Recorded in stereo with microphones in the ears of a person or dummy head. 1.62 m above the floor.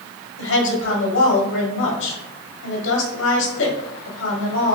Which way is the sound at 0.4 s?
75° left (ahead or behind).